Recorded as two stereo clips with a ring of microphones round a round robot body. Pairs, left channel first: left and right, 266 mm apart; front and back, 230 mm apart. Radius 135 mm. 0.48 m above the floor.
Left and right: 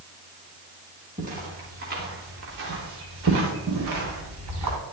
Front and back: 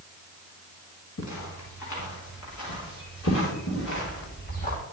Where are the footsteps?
25° right, 4.5 m; by 4.8 s 60° right, 4 m.